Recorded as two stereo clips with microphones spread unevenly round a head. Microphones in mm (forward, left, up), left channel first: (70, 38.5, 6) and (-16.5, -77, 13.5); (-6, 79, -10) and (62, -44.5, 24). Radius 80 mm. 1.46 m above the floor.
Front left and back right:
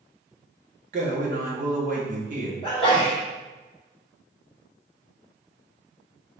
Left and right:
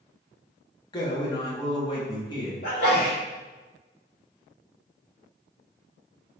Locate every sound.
0.9 s a man speaking: 175° right, 1.0 m
2.6 s a sneeze: 115° left, 1.6 m